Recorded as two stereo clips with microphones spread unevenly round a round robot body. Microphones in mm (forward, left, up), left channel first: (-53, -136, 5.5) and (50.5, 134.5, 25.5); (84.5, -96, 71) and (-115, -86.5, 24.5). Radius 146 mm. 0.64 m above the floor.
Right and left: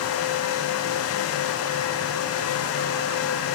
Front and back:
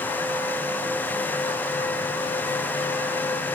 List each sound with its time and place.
Only background noise.